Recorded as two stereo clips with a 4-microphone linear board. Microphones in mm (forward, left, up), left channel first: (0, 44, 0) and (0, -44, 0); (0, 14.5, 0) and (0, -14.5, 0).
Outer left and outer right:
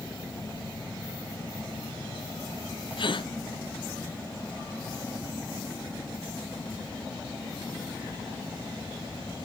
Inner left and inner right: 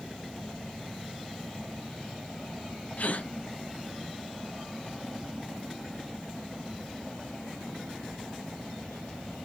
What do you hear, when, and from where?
3.0 s a gasp: 65° left (ahead or behind), 0.9 m